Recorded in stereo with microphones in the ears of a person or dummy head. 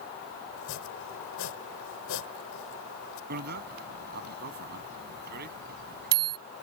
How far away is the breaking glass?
I don't hear breaking glass.